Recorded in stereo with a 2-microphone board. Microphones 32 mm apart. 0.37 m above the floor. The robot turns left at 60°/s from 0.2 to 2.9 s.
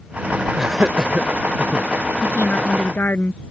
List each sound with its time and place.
0.6 s laughter: 5° right (ahead or behind); by 1.9 s 40° right (ahead or behind)
2.2 s a woman speaking: 120° left; by 3.4 s 80° left